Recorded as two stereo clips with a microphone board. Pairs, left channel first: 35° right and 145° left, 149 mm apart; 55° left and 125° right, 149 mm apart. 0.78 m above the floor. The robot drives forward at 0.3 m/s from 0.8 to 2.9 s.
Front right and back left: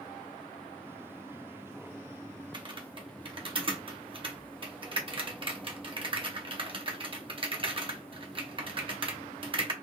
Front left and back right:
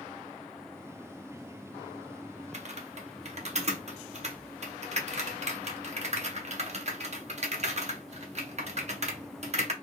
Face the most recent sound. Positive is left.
turn(degrees=-160)